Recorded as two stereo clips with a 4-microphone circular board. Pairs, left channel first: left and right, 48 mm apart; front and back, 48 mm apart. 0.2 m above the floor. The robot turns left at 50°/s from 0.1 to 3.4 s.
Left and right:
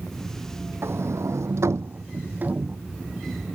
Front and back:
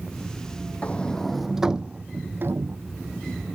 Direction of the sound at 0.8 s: 60° right.